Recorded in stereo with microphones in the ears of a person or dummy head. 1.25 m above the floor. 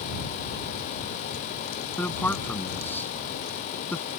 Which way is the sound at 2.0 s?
5° left (ahead or behind).